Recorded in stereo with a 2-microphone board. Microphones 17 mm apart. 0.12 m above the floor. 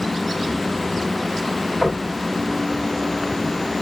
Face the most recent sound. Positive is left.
turn(degrees=-35)  # may be behind; listen again after turning